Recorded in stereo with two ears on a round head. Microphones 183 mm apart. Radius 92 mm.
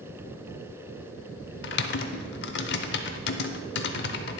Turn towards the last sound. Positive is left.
turn(degrees=60)  # may be behind; listen again after turning